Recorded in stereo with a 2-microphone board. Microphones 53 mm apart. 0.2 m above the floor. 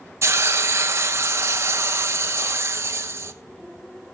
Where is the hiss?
60° right (ahead or behind), 0.9 m.